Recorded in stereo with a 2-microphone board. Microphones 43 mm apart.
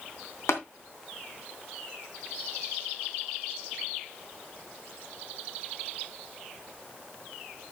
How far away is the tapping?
About 3 m.